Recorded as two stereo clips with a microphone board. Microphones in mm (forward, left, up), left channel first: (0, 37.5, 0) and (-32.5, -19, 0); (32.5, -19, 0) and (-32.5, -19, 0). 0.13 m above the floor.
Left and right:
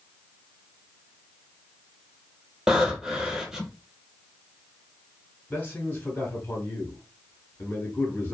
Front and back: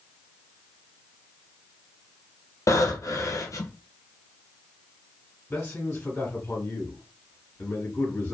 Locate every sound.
2.7 s breathing: 35° right, 0.6 m
5.5 s a man speaking: 30° left, 1.1 m